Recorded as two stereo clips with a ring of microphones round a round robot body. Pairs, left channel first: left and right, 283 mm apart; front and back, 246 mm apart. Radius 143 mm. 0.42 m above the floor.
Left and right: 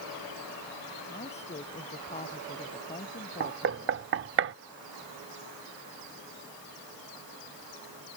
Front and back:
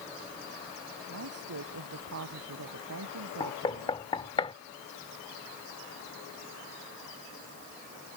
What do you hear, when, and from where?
1.1 s a woman speaking: 160° left
3.4 s knocking: 65° right